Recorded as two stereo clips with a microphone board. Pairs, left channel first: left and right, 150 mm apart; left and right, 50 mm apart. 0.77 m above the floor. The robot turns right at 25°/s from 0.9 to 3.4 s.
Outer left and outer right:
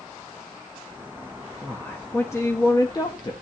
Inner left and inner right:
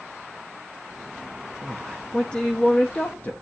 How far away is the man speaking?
About 1.2 m.